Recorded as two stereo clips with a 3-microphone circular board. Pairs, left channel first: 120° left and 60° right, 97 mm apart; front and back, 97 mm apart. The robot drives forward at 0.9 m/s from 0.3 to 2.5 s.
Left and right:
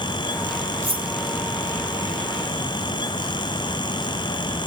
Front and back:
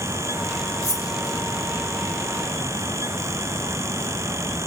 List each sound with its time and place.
0.8 s cutlery clinking: 50° right, 1.8 m; by 1.1 s 55° right, 1.7 m